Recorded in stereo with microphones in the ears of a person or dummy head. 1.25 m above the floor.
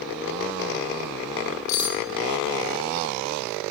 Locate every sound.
1.7 s cutlery clinking: 50° left (ahead or behind), 0.6 m